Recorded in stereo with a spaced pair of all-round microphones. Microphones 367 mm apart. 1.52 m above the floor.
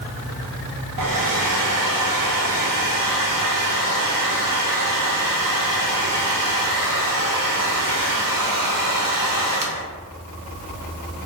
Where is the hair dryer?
60° right (ahead or behind), 0.5 m.